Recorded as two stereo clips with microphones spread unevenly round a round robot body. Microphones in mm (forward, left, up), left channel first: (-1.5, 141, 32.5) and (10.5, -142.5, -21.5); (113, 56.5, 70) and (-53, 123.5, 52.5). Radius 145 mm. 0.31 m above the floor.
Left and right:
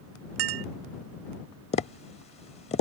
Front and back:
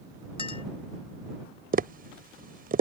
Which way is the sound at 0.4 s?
95° right.